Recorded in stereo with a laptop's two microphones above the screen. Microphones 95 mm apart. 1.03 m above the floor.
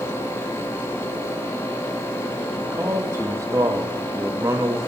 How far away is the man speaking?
About 1.3 m.